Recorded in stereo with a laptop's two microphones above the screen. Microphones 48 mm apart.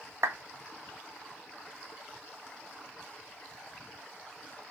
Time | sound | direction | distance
0.2 | a clap | 80° right | 0.5 m